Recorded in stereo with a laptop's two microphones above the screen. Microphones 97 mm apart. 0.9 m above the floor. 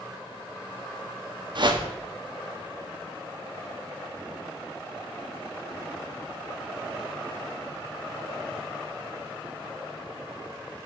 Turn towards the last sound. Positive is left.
turn(degrees=-50)  # may be behind; listen again after turning